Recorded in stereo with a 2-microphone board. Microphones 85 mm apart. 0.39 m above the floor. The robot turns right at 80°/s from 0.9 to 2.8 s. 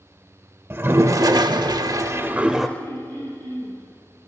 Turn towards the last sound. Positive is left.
turn(degrees=-50)  # may be behind; listen again after turning